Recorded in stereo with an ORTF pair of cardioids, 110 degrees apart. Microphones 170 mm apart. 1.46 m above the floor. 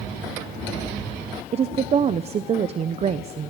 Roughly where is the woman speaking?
Ahead right.